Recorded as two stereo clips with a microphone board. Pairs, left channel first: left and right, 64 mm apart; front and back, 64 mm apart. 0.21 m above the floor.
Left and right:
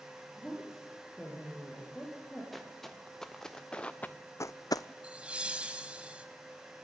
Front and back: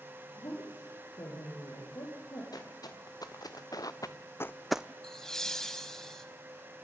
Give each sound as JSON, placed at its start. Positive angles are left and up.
{"t": 0.4, "sound": "a woman speaking", "azimuth_deg": 5, "distance_m": 6.0}
{"t": 2.5, "sound": "footsteps", "azimuth_deg": 0, "distance_m": 3.0}
{"t": 5.0, "sound": "laughter", "azimuth_deg": -65, "distance_m": 1.1}